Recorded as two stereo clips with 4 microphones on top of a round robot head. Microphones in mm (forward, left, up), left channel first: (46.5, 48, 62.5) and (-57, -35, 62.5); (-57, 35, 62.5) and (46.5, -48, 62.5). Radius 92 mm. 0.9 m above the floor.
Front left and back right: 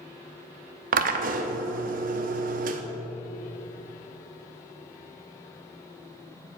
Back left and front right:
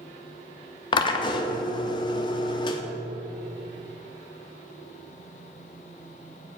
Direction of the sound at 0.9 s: 165° right.